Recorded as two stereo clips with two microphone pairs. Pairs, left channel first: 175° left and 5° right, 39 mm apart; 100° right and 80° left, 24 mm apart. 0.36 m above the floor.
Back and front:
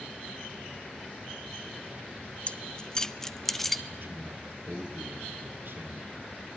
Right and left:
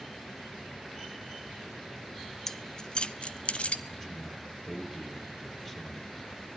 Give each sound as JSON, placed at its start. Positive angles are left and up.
{"t": 2.5, "sound": "keys jangling", "azimuth_deg": -155, "distance_m": 0.8}
{"t": 3.9, "sound": "a man speaking", "azimuth_deg": -25, "distance_m": 7.0}